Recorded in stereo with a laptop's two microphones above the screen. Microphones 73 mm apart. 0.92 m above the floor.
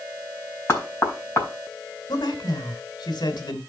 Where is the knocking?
30° left (ahead or behind), 4.5 m.